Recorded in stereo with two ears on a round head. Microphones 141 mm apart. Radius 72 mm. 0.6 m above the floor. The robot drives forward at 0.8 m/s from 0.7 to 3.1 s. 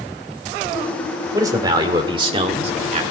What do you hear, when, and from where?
1.3 s a man speaking: 25° right (ahead or behind), 2 m; by 3.0 s 40° right (ahead or behind), 1.4 m